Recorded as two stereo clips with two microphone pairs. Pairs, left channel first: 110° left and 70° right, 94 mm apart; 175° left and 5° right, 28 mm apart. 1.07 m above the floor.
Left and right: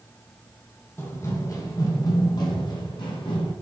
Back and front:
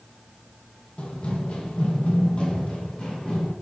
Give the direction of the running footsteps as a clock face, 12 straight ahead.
7 o'clock.